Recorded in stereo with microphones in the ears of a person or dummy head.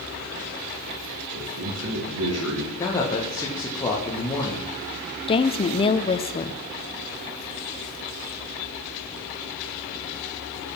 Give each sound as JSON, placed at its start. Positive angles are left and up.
{"t": 1.3, "sound": "a man speaking", "side_deg": -85, "distance_m": 3.0}
{"t": 2.8, "sound": "a man speaking", "side_deg": 20, "distance_m": 1.7}
{"t": 5.3, "sound": "a woman speaking", "side_deg": 30, "distance_m": 0.8}